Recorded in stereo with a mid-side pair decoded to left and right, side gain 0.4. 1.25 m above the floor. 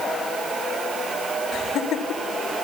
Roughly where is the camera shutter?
No camera shutter in this recording.